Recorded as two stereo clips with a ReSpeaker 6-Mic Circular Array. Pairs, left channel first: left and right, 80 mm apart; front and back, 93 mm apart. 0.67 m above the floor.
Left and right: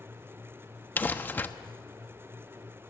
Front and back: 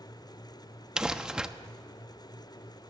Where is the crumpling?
110° left, 0.8 m.